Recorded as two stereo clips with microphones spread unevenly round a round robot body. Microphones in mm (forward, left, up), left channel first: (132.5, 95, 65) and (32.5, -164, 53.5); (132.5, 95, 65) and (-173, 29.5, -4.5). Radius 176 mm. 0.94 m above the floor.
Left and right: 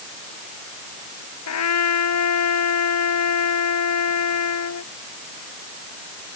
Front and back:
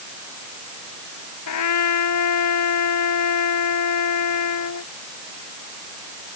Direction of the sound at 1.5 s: 45° left.